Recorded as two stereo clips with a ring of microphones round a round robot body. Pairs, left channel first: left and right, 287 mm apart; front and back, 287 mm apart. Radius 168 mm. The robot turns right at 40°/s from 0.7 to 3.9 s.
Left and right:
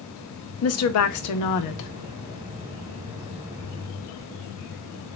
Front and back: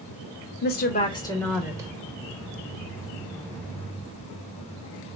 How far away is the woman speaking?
About 0.8 m.